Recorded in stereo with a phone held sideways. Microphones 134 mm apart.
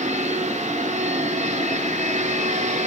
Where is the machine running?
60° right (ahead or behind), 1.5 m.